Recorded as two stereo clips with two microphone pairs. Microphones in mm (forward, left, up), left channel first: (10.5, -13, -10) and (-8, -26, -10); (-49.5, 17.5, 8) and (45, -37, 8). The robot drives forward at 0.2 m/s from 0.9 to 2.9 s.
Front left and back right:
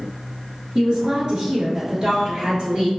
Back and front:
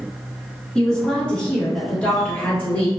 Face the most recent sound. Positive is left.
turn(degrees=-145)